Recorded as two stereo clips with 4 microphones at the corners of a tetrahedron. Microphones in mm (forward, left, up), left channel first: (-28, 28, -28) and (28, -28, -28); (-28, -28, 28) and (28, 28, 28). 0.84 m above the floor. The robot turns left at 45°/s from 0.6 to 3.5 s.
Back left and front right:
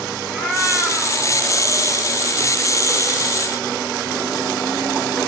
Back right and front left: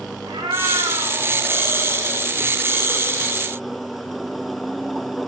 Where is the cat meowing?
55° left, 2.5 m; by 2.3 s 20° right, 2.5 m.